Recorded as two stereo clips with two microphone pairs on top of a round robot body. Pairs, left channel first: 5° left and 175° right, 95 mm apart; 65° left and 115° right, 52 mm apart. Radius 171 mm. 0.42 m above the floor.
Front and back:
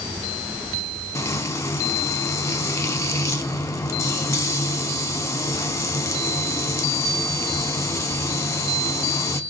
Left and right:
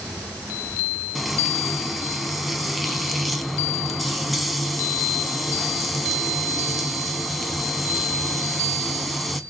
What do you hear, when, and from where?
1.1 s frying: 20° right, 1.1 m